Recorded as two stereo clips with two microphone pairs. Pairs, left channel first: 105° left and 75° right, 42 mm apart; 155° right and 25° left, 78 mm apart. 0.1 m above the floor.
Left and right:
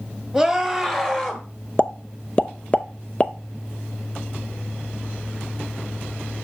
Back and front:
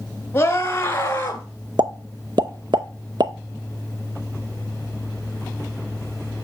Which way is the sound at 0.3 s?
170° right.